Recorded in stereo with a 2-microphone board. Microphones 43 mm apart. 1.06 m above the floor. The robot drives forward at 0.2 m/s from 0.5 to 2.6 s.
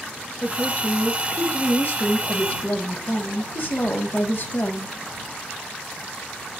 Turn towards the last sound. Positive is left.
turn(degrees=50)  # may be behind; listen again after turning